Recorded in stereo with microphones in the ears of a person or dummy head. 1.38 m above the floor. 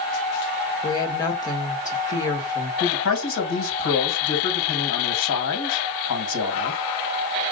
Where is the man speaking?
80° left, 1.6 m.